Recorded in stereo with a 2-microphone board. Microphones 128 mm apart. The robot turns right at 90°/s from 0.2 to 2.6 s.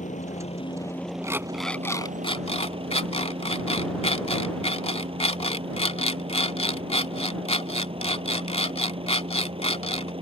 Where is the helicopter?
95° left; by 10.2 s 50° right.